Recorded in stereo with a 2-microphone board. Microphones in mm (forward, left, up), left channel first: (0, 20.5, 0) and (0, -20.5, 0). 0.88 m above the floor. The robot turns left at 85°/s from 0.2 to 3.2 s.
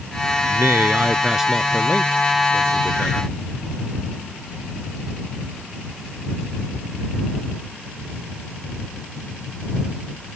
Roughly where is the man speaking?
Right.